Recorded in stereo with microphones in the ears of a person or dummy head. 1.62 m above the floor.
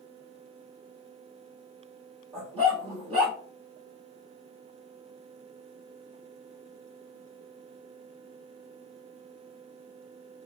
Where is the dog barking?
30° right (ahead or behind), 1.3 m.